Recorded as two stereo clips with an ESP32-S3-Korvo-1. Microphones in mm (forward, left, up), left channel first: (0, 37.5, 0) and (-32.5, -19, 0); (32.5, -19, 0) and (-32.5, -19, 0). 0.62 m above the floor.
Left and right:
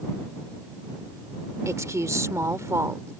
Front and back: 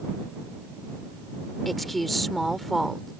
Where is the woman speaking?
90° right.